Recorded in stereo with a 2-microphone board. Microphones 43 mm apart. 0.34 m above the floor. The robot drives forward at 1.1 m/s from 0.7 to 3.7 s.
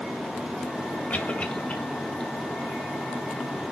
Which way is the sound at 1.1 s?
40° left (ahead or behind).